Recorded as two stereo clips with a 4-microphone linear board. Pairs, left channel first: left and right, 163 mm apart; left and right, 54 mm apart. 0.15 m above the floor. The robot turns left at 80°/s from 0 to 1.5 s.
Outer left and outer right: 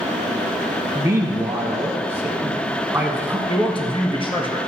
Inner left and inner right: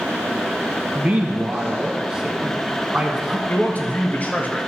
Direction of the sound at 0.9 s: 20° right (ahead or behind).